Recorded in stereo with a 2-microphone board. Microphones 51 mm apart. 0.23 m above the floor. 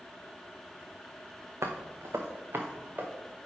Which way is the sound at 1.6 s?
80° right.